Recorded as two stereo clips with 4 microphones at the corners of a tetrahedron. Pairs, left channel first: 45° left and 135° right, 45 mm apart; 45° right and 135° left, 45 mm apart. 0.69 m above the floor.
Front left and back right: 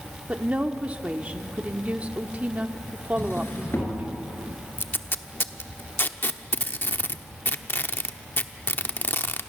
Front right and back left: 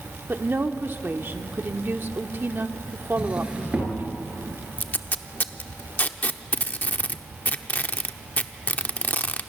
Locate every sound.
0.3 s a woman speaking: 165° left, 1.2 m
3.2 s a drawer: 75° left, 4.5 m
4.8 s tape being pulled: 5° left, 0.9 m